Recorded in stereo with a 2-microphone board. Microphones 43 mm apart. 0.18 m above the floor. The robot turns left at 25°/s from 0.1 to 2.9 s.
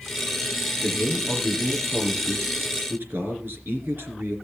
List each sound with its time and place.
0.8 s a man speaking: 25° right, 3 m; by 4.4 s 80° right, 3 m